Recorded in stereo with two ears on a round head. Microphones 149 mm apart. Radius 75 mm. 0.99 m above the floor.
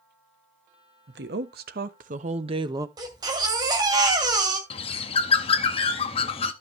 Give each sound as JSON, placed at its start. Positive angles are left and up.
{"t": 1.1, "sound": "a woman speaking", "side_deg": -70, "distance_m": 1.3}
{"t": 3.0, "sound": "a baby crying", "side_deg": -25, "distance_m": 2.0}
{"t": 4.7, "sound": "a bird", "side_deg": 35, "distance_m": 0.9}